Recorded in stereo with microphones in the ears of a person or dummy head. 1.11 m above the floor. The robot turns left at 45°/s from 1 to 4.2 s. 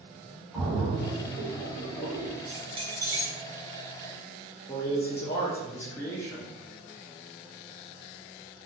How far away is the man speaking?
About 0.7 m.